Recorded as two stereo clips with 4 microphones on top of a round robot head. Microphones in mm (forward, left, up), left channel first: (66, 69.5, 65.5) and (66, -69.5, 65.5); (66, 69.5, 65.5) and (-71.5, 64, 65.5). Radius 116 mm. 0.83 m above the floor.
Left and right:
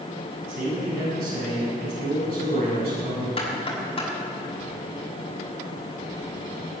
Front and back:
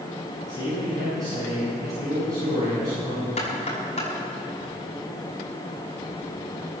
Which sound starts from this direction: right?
A man speaking, at 0.5 s.